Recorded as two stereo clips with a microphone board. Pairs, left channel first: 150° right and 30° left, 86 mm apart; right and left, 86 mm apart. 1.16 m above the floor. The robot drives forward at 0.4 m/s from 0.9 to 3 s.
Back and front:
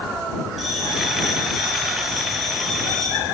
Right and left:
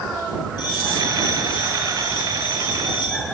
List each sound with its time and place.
0.6 s a bell: 60° right, 8.5 m; by 3.2 s 65° right, 8 m